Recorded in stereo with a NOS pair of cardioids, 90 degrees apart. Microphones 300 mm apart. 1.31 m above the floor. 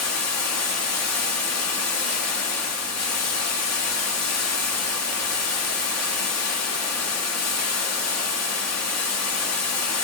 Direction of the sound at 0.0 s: 55° left.